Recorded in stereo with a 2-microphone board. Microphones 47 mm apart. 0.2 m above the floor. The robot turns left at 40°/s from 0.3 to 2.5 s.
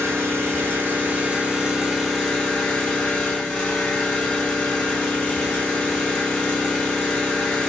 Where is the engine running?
110° right, 1.2 m; by 7.7 s 160° left, 1.2 m.